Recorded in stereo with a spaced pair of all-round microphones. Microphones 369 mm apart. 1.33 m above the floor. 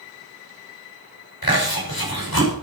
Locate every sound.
1.4 s chewing: 75° left (ahead or behind), 5.5 m